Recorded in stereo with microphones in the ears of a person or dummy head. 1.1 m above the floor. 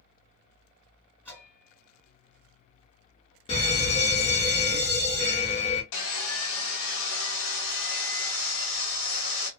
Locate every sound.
1.2 s a bell: 10° left (ahead or behind), 2 m
3.5 s a fire alarm: 30° left (ahead or behind), 1.2 m
5.9 s sawing: 65° left (ahead or behind), 1.0 m